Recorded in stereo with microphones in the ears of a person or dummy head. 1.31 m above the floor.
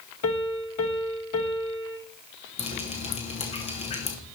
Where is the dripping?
30° left (ahead or behind), 1.4 m.